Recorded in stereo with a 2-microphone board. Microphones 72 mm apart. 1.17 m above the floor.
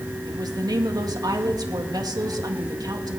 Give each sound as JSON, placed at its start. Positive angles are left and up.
{"t": 0.2, "sound": "a woman speaking", "side_deg": -65, "distance_m": 2.0}